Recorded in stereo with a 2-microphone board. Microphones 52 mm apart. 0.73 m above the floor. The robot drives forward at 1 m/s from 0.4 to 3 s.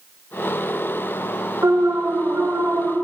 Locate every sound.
1.6 s an alarm: 75° right (ahead or behind), 1.9 m; by 3.0 s 45° right (ahead or behind), 2.5 m